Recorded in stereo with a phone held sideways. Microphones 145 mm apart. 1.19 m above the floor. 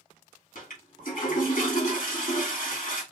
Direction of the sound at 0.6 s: 70° left (ahead or behind).